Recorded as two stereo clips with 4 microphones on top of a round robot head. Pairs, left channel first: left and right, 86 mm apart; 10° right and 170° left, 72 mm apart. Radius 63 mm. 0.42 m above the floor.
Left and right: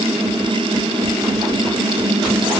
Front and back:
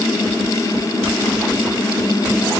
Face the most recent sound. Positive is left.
No sound to turn to.